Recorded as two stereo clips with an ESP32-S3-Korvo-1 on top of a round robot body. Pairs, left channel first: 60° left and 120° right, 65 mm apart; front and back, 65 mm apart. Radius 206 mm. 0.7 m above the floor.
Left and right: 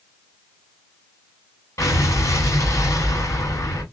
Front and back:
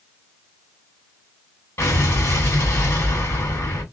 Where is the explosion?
35° left, 1.8 m.